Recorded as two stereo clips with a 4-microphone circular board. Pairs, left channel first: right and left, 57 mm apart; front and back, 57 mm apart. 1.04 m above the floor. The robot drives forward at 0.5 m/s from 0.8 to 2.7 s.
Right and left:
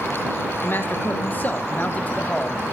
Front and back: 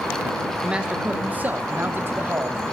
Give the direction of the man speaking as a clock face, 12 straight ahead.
4 o'clock.